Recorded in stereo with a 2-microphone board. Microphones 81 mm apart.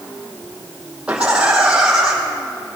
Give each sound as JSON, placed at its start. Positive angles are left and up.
{"t": 1.1, "sound": "laughter", "side_deg": -15, "distance_m": 4.5}